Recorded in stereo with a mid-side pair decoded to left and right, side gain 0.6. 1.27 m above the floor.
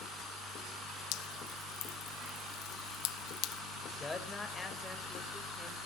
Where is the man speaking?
20° left, 5 m.